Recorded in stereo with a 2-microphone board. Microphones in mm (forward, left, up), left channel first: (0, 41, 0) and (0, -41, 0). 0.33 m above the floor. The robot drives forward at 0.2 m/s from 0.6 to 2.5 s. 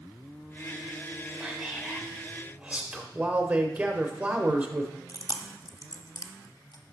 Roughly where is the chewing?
Left.